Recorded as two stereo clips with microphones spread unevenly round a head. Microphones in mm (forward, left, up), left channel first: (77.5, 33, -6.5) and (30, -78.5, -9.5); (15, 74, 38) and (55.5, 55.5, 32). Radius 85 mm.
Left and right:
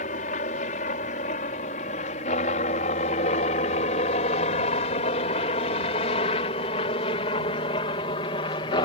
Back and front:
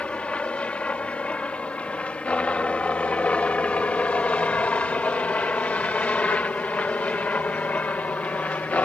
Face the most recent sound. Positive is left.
turn(degrees=110)